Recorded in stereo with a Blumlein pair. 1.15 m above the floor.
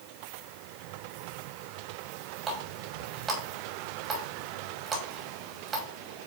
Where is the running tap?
20° right, 3 m.